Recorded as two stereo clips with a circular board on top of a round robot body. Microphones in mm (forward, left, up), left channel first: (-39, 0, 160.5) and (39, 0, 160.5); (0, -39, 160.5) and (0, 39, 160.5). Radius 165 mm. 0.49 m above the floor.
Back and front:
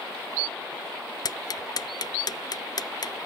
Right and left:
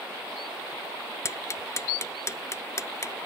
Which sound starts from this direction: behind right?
Ticking, at 1.2 s.